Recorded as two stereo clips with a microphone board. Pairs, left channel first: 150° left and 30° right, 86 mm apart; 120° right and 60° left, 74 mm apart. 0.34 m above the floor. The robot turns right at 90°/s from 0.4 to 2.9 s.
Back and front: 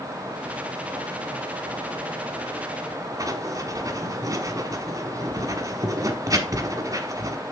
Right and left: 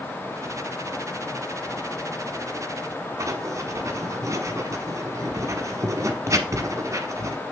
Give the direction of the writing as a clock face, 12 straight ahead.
11 o'clock.